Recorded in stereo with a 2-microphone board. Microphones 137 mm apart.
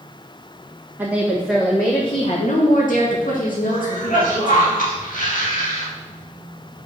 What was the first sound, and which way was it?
A woman speaking, 15° right (ahead or behind).